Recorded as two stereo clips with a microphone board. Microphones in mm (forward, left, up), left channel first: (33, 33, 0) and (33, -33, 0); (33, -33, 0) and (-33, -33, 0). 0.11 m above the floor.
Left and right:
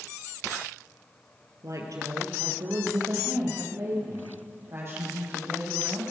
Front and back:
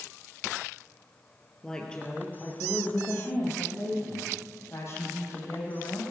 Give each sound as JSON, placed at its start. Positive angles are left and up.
{"t": 1.6, "sound": "a woman speaking", "azimuth_deg": -80, "distance_m": 2.5}